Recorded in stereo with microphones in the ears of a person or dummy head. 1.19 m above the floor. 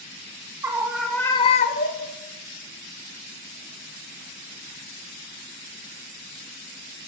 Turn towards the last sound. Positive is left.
turn(degrees=45)  # may be behind; listen again after turning